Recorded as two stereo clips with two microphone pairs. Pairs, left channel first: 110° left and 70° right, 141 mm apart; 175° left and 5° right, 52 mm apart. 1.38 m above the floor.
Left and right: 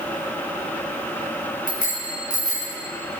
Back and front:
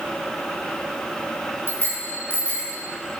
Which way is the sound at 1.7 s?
130° left.